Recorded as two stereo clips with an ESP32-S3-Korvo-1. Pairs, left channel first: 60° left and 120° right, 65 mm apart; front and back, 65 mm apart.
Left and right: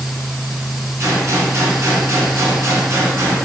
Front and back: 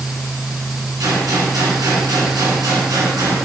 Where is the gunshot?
165° right, 2 m.